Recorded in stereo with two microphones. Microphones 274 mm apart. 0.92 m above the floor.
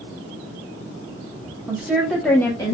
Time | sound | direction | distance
1.7 | a woman speaking | 5° right (ahead or behind) | 1.3 m